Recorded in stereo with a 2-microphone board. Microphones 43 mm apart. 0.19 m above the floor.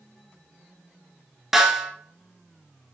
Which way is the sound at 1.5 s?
5° right (ahead or behind).